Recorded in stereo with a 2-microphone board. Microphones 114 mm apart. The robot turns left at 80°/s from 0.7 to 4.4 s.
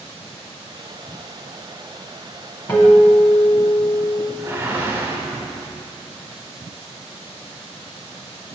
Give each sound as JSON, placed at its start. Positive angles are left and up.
{"t": 2.7, "sound": "a guitar", "azimuth_deg": 135, "distance_m": 1.1}
{"t": 4.4, "sound": "a whoosh", "side_deg": -20, "distance_m": 0.7}